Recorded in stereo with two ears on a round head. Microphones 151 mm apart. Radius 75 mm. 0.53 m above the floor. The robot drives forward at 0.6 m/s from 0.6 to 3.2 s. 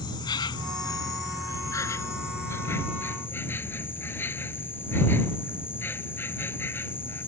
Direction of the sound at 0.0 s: 25° left (ahead or behind).